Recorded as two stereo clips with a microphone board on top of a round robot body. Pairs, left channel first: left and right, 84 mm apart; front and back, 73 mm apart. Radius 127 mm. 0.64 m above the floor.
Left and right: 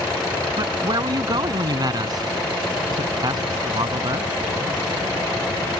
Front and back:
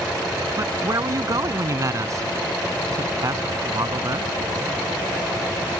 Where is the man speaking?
135° right.